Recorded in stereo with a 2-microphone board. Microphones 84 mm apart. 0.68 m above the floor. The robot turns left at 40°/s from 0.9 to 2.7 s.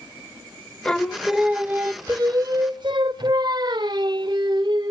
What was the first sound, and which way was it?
Singing, 10° left.